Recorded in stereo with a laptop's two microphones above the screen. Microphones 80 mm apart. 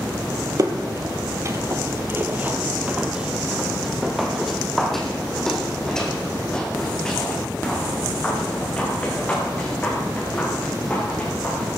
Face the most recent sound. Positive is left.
turn(degrees=20)  # may be behind; listen again after turning